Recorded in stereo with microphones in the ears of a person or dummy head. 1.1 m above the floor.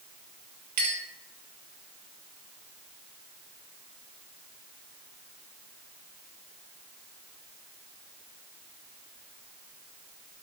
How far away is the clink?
About 1.0 m.